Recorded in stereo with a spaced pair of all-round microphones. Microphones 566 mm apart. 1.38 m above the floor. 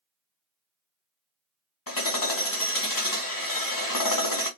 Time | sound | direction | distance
1.9 | hammering | 35° left (ahead or behind) | 0.8 m